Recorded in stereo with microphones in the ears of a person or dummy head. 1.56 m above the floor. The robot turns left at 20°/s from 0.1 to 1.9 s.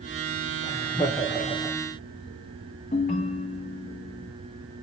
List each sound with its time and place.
0.6 s laughter: 25° left (ahead or behind), 0.6 m; by 1.8 s 5° left (ahead or behind), 0.6 m
2.9 s a ringtone: 35° left (ahead or behind), 0.6 m